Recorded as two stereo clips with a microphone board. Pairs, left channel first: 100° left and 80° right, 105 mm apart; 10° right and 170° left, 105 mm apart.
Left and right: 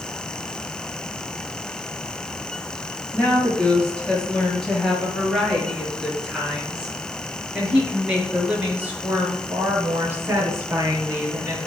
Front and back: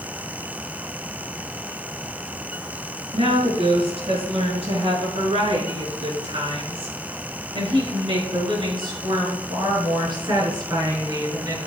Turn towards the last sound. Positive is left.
turn(degrees=-140)